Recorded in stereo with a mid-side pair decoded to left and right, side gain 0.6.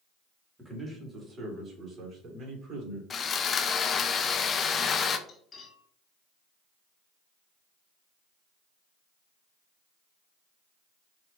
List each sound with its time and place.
0.6 s a man speaking: 10° right, 1.9 m; by 3.0 s 45° right, 3 m
3.1 s sawing: 35° left, 0.5 m
5.3 s cutlery clinking: 35° left, 1.5 m